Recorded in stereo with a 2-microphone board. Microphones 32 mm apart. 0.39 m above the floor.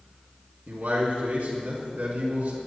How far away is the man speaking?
About 4 m.